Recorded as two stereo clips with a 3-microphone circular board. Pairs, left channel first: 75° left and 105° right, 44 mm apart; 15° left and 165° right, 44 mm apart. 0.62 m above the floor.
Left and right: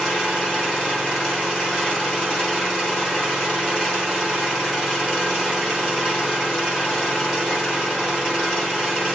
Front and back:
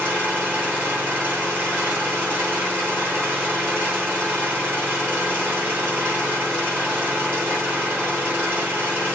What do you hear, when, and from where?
0.0 s an engine running: 150° left, 7.5 m